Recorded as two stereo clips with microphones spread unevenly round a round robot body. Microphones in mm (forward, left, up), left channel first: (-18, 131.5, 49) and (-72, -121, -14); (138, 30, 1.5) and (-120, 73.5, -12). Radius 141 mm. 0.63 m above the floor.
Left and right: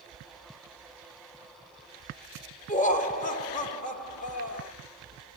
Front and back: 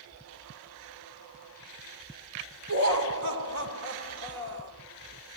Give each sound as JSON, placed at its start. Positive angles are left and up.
{"t": 2.7, "sound": "laughter", "azimuth_deg": 145, "distance_m": 2.5}